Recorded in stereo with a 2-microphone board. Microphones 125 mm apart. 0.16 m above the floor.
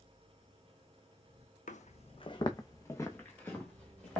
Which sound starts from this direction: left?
Footsteps, at 1.7 s.